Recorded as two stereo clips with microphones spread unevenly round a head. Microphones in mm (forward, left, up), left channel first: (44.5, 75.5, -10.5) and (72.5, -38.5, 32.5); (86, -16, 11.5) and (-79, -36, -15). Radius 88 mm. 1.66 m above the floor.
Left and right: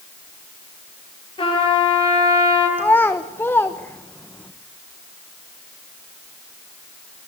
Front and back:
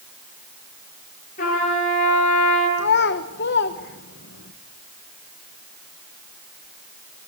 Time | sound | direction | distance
1.4 | a trumpet | 50° left | 9 m
2.8 | a child speaking | 20° left | 1.3 m